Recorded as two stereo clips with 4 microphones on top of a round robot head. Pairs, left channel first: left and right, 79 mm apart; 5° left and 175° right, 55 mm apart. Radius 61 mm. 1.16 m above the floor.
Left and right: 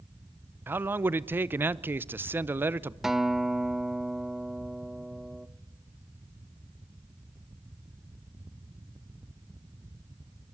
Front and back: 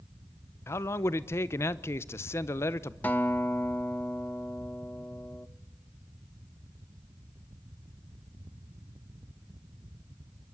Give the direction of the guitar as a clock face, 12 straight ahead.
12 o'clock.